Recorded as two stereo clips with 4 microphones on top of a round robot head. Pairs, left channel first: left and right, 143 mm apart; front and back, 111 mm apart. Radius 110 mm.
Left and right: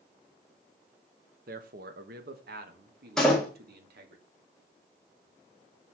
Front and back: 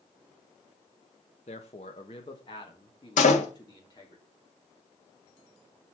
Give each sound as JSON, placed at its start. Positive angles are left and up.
{"t": 1.5, "sound": "a man speaking", "azimuth_deg": -50, "distance_m": 1.2}
{"t": 3.2, "sound": "a door slam", "azimuth_deg": 0, "distance_m": 1.9}